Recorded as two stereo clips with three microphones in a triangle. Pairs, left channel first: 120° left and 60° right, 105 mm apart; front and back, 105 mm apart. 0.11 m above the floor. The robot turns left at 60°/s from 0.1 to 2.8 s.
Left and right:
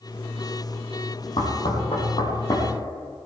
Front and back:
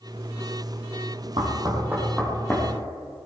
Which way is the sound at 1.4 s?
145° left.